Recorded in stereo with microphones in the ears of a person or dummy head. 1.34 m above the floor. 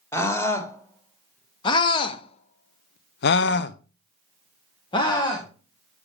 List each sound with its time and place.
0.1 s a scream: 15° left (ahead or behind), 2 m